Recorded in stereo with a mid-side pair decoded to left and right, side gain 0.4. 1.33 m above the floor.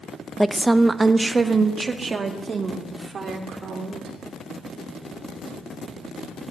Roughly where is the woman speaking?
Ahead.